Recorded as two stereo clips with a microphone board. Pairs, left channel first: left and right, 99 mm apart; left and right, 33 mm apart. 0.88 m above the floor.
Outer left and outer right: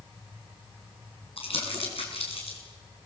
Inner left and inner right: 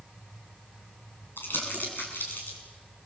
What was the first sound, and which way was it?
Crumpling, 75° left (ahead or behind).